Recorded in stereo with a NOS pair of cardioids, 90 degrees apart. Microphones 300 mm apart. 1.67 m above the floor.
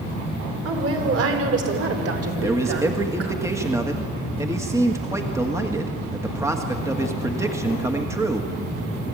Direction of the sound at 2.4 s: 10° right.